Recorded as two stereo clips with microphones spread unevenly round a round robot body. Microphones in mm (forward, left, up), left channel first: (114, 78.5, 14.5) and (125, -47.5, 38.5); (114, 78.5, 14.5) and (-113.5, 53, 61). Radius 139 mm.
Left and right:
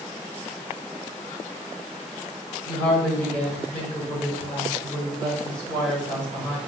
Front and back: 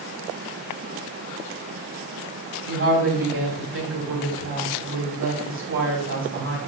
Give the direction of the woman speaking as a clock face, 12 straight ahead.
7 o'clock.